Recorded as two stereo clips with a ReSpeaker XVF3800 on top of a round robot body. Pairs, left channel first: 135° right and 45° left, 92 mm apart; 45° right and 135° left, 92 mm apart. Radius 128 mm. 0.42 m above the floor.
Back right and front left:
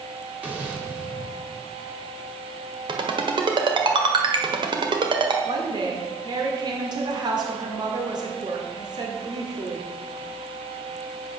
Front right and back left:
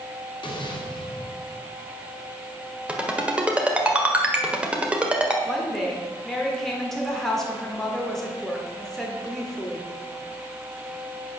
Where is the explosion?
30° right, 2.5 m.